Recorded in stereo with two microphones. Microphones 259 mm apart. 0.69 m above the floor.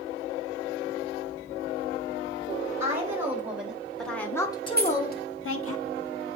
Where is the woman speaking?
10° right (ahead or behind), 3 m; by 5.8 s 60° left (ahead or behind), 1.2 m.